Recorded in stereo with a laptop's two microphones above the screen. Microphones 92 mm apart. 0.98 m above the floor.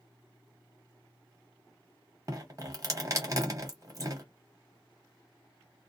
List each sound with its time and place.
2.3 s dripping: 35° right (ahead or behind), 0.9 m